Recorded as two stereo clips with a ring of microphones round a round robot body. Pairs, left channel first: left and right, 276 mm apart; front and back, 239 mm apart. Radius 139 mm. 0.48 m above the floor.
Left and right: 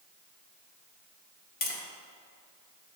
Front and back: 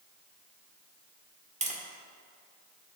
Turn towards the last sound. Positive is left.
turn(degrees=130)